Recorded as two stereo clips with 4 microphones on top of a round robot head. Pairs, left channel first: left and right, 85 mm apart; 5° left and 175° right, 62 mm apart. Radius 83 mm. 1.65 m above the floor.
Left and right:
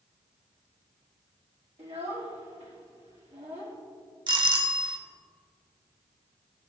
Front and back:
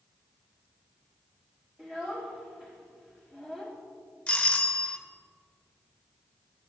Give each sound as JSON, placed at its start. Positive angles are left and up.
{"t": 1.8, "sound": "a child speaking", "azimuth_deg": -95, "distance_m": 1.8}
{"t": 4.3, "sound": "a doorbell", "azimuth_deg": -65, "distance_m": 0.8}